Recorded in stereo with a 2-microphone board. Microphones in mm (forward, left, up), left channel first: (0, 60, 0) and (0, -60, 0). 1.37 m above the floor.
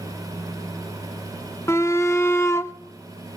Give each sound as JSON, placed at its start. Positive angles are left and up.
{"t": 1.7, "sound": "a shout", "side_deg": 20, "distance_m": 0.6}